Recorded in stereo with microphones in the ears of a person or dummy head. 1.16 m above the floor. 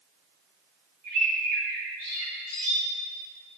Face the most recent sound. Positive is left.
turn(degrees=-50)  # may be behind; listen again after turning